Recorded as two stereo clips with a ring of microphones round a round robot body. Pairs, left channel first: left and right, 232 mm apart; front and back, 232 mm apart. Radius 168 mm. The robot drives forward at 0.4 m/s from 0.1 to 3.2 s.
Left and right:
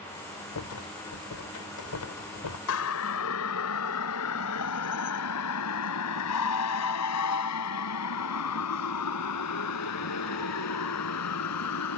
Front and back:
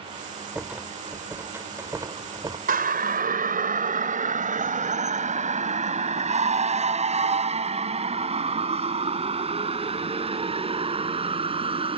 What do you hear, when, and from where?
0.6 s a rattle: 95° left; by 2.6 s 105° left
2.7 s a siren: 130° left; by 12.0 s 115° left